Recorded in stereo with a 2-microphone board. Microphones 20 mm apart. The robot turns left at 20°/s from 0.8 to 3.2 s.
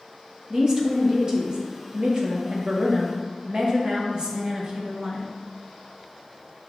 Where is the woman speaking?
45° right, 0.6 m; by 5.3 s 95° right, 0.6 m.